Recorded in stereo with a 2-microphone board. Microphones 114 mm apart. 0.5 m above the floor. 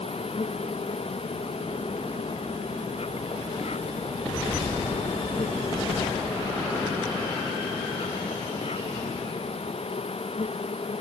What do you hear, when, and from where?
0.0 s an insect: 65° left (ahead or behind)